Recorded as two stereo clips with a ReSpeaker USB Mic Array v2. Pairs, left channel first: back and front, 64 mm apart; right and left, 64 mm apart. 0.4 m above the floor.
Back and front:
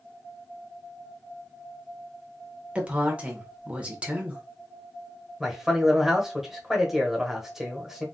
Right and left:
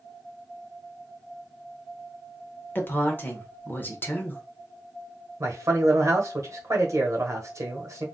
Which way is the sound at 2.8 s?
55° right.